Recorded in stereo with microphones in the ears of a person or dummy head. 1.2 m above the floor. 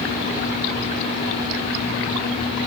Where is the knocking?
No knocking in this recording.